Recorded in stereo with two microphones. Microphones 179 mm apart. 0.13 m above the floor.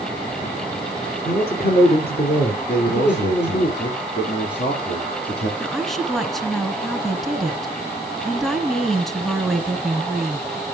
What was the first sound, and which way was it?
A man speaking, 60° left (ahead or behind).